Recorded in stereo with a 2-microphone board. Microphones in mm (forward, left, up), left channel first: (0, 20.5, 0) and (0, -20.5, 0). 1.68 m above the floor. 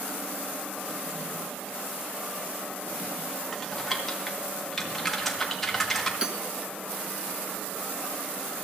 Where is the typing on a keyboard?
5° left (ahead or behind), 1.6 m.